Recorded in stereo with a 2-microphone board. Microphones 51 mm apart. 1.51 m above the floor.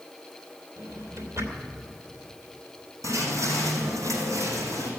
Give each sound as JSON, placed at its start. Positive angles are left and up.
{"t": 0.8, "sound": "a drawer", "side_deg": -70, "distance_m": 3.0}
{"t": 3.0, "sound": "footsteps", "side_deg": -75, "distance_m": 5.5}